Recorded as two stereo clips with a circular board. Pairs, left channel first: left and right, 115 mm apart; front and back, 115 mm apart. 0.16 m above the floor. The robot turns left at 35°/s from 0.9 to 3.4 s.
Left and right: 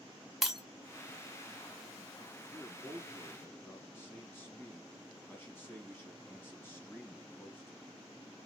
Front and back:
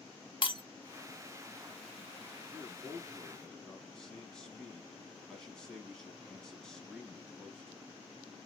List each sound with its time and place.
0.4 s breaking glass: straight ahead, 0.8 m
2.5 s a man speaking: 105° left, 1.2 m; by 8.0 s 75° left, 1.2 m